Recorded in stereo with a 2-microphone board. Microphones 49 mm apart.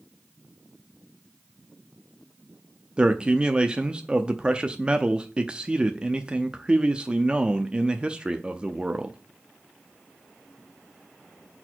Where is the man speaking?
20° right (ahead or behind), 0.6 m.